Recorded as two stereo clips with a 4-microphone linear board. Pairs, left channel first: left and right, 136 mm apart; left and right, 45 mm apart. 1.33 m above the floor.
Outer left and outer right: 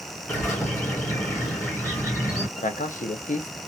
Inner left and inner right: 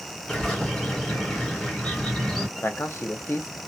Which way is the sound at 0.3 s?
20° left (ahead or behind).